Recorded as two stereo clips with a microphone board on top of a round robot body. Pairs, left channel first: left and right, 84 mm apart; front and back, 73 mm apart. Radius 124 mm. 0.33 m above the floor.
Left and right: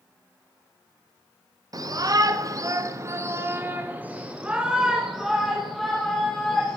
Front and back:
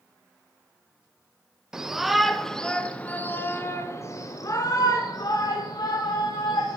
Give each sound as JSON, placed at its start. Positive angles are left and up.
{"t": 1.7, "sound": "a shout", "azimuth_deg": -100, "distance_m": 1.8}